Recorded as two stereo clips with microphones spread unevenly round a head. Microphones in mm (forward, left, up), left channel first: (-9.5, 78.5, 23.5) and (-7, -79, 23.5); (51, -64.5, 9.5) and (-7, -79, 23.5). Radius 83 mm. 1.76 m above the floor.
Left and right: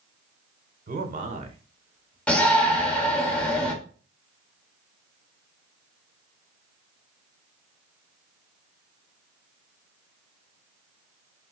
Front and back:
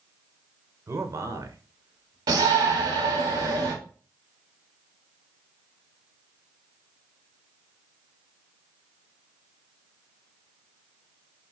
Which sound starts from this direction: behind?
A shout, at 2.3 s.